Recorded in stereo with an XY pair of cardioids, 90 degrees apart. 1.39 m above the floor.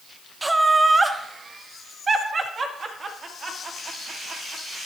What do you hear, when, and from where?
0.4 s laughter: 15° right, 0.9 m; by 4.8 s 50° right, 3 m